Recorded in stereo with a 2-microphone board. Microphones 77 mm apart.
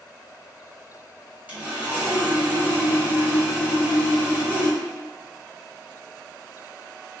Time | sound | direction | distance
1.5 | sawing | 20° right (ahead or behind) | 1.1 m